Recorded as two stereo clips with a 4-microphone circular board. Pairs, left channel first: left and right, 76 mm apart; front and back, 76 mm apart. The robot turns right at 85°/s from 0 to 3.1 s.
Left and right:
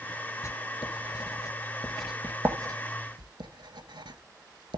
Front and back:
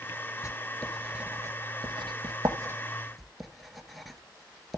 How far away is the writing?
About 0.8 m.